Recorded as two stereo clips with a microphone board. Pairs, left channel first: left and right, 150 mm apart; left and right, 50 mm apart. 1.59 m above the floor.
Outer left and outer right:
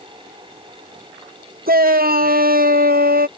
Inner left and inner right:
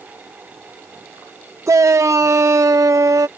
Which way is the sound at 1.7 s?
80° right.